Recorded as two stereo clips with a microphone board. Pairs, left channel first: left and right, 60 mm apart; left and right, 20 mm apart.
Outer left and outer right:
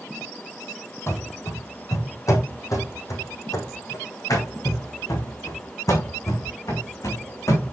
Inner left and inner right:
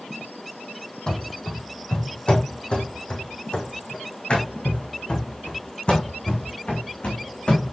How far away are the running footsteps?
About 2.5 m.